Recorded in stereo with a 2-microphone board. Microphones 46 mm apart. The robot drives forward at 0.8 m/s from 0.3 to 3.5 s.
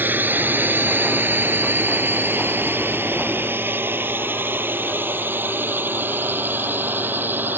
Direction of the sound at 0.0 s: 40° right (ahead or behind).